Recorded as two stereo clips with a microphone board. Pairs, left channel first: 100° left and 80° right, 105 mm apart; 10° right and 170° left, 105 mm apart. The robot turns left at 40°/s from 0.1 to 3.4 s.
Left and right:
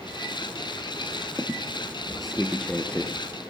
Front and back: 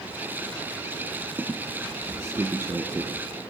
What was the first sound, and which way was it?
A squeak, 135° right.